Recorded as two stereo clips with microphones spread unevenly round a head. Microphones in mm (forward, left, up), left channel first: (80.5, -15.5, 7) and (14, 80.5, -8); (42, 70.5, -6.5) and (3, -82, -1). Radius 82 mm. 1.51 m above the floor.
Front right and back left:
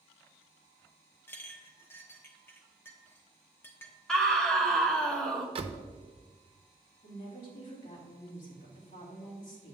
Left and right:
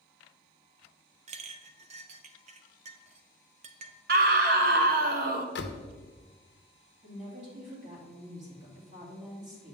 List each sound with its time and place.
1.3 s a clink: 115° right, 0.6 m
4.1 s a scream: 140° right, 0.9 m
5.5 s a door slam: 85° left, 0.7 m
7.0 s a woman speaking: 65° right, 3 m